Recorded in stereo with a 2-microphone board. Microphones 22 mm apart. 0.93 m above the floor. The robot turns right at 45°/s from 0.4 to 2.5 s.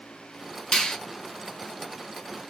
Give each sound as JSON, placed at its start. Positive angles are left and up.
{"t": 0.7, "sound": "a finger snap", "side_deg": 55, "distance_m": 0.9}